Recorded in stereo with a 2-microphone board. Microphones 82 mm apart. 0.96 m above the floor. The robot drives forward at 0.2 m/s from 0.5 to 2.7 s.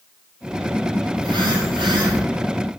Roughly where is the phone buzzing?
Right.